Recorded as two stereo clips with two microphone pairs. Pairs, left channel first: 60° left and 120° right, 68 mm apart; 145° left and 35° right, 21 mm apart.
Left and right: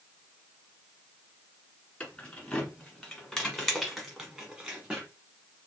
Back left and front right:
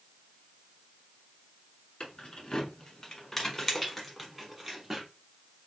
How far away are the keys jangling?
About 1.4 m.